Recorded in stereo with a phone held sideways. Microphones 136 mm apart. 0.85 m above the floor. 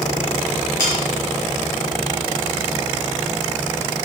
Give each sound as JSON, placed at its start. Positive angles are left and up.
{"t": 0.8, "sound": "sawing", "side_deg": 20, "distance_m": 3.5}